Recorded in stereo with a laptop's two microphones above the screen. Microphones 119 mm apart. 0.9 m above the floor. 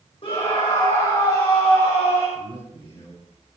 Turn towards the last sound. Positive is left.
turn(degrees=55)  # may be behind; listen again after turning